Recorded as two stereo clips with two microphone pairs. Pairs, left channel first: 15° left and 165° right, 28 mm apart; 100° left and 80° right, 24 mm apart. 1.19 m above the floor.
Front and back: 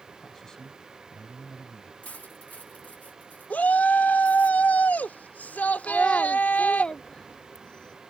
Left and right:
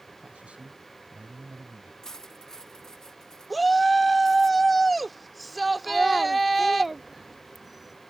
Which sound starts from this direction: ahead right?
A man speaking, at 0.2 s.